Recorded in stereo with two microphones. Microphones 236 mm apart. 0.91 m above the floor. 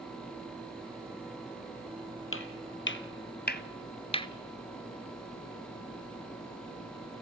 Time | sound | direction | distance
2.3 | footsteps | 65° left (ahead or behind) | 1.9 m